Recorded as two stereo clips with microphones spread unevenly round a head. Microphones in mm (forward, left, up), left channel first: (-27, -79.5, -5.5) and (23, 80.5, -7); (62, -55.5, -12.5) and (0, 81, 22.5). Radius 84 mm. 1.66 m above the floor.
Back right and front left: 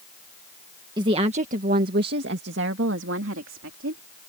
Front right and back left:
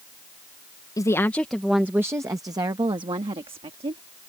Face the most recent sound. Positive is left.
turn(degrees=65)